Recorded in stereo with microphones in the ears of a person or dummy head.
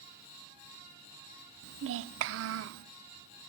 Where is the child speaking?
65° right (ahead or behind), 0.5 m.